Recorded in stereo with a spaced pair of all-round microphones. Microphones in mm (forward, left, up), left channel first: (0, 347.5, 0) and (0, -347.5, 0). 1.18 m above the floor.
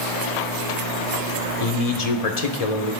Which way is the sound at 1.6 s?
65° left (ahead or behind).